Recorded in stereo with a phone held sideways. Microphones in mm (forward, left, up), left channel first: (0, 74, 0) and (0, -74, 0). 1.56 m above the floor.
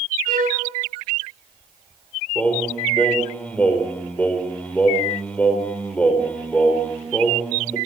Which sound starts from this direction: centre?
Singing, at 2.4 s.